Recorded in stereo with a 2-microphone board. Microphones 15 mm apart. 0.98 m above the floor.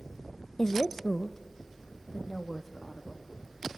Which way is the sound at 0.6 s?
25° left (ahead or behind).